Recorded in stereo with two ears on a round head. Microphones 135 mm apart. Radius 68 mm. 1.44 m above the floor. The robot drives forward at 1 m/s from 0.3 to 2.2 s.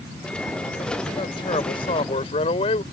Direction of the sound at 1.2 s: 30° left (ahead or behind).